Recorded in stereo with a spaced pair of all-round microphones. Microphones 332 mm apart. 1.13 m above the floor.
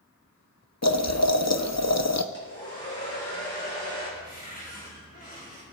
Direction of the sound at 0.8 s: 50° left (ahead or behind).